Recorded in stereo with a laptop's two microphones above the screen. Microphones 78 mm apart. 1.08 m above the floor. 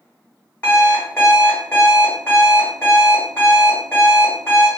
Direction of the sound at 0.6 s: 20° left (ahead or behind).